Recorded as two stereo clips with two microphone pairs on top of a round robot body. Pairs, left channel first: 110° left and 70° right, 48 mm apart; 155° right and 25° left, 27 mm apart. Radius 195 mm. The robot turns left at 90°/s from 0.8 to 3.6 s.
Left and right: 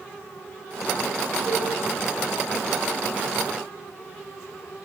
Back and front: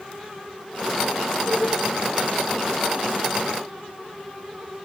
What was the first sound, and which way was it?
A cowbell, 110° right.